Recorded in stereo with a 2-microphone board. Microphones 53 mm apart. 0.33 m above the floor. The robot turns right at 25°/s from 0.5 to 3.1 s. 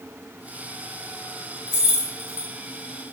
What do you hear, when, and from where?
1.7 s keys jangling: 25° right (ahead or behind), 1.0 m; by 2.5 s 40° right (ahead or behind), 1.0 m